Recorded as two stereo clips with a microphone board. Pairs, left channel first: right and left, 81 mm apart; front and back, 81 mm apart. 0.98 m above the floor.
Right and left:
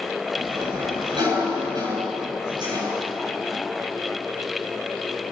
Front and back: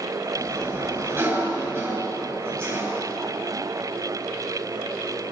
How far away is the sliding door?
About 10 m.